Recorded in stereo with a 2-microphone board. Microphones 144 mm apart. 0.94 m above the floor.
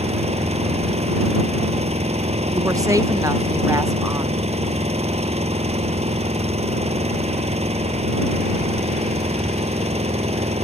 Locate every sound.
0.0 s an engine running: 50° right (ahead or behind)
2.5 s a woman speaking: 25° right (ahead or behind)